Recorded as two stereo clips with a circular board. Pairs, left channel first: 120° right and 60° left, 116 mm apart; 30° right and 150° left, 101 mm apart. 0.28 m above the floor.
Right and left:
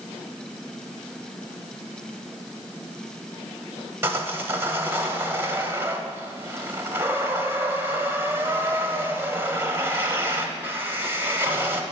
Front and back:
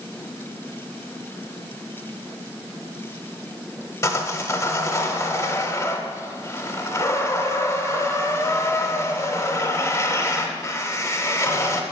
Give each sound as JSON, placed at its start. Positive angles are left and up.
{"t": 4.0, "sound": "sawing", "azimuth_deg": 5, "distance_m": 0.9}